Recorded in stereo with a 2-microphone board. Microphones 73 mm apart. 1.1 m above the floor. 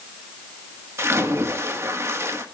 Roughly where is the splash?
Right.